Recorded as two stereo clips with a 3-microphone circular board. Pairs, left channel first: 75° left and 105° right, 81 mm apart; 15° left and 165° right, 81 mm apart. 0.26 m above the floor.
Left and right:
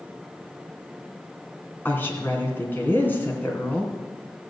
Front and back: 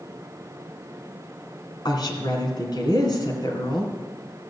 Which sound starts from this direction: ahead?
A woman speaking, at 1.9 s.